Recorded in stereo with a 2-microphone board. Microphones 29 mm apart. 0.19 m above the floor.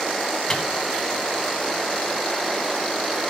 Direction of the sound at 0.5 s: 20° left (ahead or behind).